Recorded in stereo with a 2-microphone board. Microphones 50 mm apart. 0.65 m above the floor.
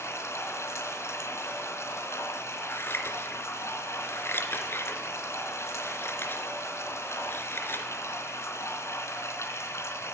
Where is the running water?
65° left (ahead or behind), 3.5 m.